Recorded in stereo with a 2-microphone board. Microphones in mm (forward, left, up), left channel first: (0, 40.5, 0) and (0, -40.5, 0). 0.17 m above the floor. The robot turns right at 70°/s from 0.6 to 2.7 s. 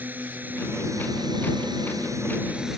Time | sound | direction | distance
0.0 | a drone | 155° right | ?